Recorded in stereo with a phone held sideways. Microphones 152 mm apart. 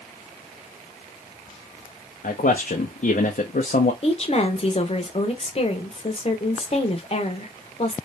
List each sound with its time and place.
2.2 s a man speaking: 65° left (ahead or behind), 0.6 m
4.0 s a woman speaking: 40° left (ahead or behind), 0.9 m